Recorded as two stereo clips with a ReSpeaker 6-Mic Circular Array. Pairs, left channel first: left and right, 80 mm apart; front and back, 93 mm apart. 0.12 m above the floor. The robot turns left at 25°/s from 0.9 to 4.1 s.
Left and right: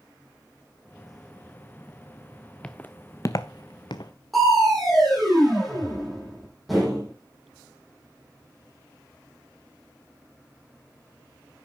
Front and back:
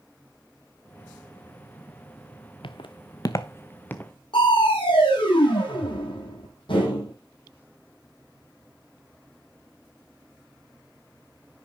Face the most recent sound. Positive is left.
turn(degrees=0)